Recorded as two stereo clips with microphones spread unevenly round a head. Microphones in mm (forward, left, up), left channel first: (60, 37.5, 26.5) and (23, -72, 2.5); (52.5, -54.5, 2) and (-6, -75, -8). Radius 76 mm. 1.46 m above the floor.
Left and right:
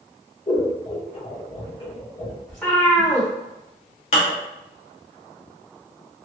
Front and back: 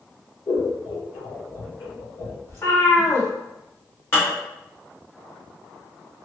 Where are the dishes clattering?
80° left, 1.1 m.